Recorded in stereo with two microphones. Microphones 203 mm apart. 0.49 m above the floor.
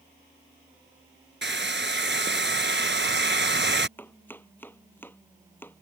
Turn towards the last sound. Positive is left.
turn(degrees=10)  # may be behind; listen again after turning